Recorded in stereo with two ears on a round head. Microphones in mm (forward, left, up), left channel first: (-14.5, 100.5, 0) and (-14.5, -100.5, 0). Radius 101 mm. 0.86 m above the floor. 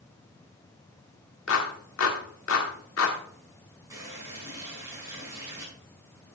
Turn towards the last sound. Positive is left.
turn(degrees=-15)  # may be behind; listen again after turning